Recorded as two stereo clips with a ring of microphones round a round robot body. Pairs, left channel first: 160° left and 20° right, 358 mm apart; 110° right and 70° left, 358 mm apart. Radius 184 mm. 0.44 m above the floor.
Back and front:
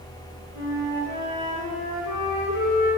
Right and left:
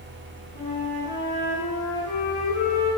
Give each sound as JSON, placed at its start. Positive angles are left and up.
{"t": 0.5, "sound": "a flute", "azimuth_deg": 180, "distance_m": 2.0}